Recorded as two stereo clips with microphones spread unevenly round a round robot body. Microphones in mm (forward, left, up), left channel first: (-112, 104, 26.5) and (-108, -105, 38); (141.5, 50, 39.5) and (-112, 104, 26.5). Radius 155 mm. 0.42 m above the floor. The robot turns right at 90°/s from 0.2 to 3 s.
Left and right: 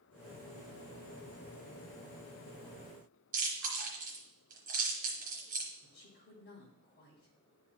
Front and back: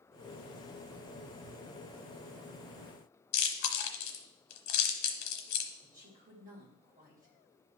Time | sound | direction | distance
3.3 | chewing | 30° right | 1.0 m
5.8 | a woman speaking | 115° left | 2.5 m